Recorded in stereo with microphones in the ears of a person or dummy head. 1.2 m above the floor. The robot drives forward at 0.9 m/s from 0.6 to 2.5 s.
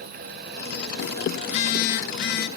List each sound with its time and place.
1.4 s a phone buzzing: 35° left (ahead or behind), 1.1 m; by 2.5 s 45° left (ahead or behind), 0.9 m